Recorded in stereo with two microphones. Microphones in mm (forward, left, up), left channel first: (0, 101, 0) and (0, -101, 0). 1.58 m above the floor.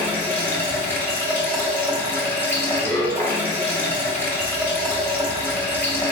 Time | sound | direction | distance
0.0 | running water | 10° left (ahead or behind) | 1.4 m